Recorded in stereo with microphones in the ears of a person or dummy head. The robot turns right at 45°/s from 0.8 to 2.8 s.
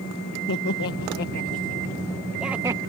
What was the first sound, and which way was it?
Laughter, 70° left (ahead or behind).